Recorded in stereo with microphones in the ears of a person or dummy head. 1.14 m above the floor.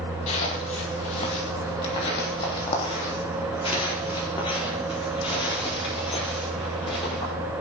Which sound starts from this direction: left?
Footsteps, at 0.3 s.